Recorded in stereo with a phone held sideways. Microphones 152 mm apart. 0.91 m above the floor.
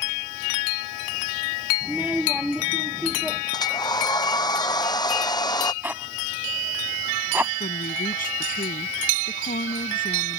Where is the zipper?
10° right (ahead or behind).